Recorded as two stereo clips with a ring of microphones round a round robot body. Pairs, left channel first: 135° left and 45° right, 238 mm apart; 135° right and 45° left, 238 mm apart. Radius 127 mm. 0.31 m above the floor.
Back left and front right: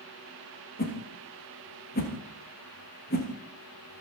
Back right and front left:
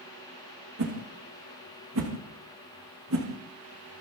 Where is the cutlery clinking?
No cutlery clinking in this recording.